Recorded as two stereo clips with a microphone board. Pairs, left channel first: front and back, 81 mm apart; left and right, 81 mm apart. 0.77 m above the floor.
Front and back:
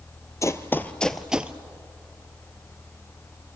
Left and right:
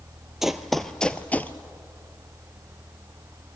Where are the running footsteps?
5° right, 0.9 m; by 1.5 s 130° left, 0.8 m.